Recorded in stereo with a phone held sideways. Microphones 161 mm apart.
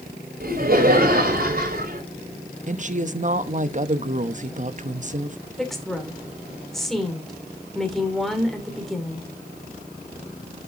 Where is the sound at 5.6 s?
Centre (ahead or behind), 2.5 m.